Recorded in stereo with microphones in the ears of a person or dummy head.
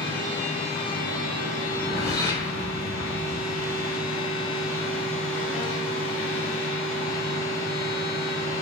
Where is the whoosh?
15° left (ahead or behind), 0.8 m.